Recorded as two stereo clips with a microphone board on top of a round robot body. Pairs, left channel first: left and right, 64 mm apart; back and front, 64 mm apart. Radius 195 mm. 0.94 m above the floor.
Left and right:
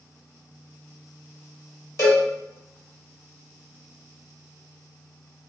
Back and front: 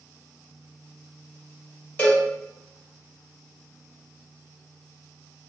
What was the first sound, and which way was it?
A cowbell, 115° left.